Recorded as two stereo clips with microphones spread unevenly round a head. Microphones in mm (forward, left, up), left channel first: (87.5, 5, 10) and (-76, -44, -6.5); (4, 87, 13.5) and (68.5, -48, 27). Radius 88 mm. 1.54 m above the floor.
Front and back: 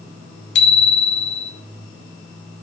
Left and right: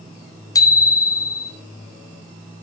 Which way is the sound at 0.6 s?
45° left.